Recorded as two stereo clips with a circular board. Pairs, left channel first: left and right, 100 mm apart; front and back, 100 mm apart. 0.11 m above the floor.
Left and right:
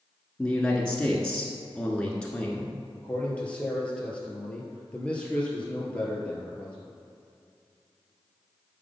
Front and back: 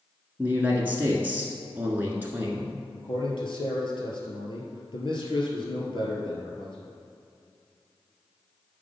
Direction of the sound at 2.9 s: 15° left.